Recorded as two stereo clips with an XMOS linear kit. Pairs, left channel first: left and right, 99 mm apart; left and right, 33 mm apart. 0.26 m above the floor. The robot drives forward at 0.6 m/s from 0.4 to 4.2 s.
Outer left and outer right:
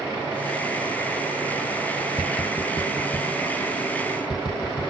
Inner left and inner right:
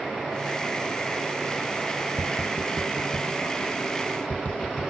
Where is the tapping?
40° left (ahead or behind); by 4.9 s 45° left (ahead or behind).